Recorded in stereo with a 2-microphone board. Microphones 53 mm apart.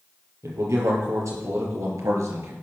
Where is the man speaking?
70° right (ahead or behind), 5 m.